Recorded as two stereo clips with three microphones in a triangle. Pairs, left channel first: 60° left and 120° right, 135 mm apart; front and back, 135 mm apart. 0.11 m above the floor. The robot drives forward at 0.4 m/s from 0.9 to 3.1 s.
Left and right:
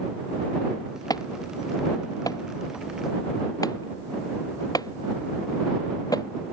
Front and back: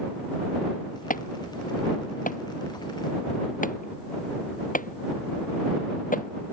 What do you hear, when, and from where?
1.1 s an alarm: 5° right